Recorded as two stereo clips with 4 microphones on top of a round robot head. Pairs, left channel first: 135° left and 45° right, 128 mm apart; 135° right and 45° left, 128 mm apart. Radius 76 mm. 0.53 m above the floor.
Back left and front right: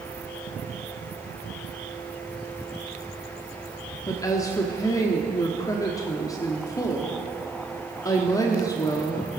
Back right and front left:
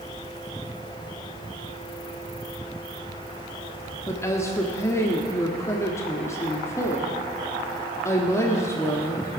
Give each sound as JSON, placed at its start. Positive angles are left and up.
{"t": 4.1, "sound": "a woman speaking", "azimuth_deg": 175, "distance_m": 1.3}